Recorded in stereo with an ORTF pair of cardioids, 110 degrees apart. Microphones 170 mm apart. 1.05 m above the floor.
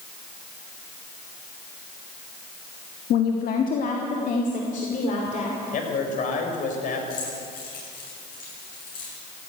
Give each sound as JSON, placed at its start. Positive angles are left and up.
{"t": 3.1, "sound": "a woman speaking", "azimuth_deg": 60, "distance_m": 1.2}
{"t": 5.7, "sound": "a man speaking", "azimuth_deg": 50, "distance_m": 4.0}
{"t": 7.1, "sound": "keys jangling", "azimuth_deg": 60, "distance_m": 7.5}